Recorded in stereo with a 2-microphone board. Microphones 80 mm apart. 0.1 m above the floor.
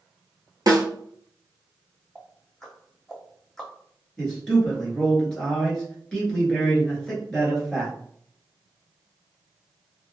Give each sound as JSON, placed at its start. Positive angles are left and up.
{"t": 0.7, "sound": "a snare drum", "side_deg": -55, "distance_m": 0.8}
{"t": 2.1, "sound": "ticking", "side_deg": 5, "distance_m": 1.4}
{"t": 4.2, "sound": "a man speaking", "side_deg": 10, "distance_m": 1.4}